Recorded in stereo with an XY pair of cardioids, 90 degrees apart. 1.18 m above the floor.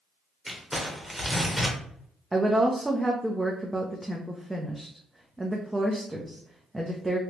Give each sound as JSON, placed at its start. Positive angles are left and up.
{"t": 0.5, "sound": "crumpling", "azimuth_deg": -10, "distance_m": 1.2}
{"t": 2.3, "sound": "a woman speaking", "azimuth_deg": -15, "distance_m": 0.6}